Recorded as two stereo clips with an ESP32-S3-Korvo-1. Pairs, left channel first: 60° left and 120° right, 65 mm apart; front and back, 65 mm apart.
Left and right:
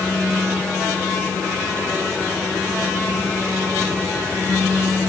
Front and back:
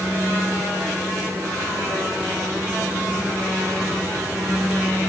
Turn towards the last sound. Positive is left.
No sound to turn to.